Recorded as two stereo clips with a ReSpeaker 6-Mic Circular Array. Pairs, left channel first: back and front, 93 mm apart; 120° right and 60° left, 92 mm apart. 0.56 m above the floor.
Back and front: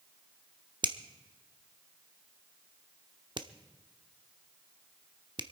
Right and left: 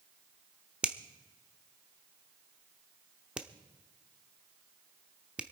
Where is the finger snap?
15° right, 0.8 m.